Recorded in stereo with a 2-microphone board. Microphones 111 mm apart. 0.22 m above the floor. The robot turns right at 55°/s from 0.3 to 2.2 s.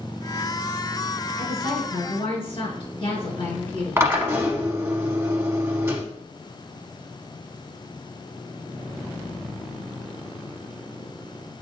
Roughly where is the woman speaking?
Ahead left.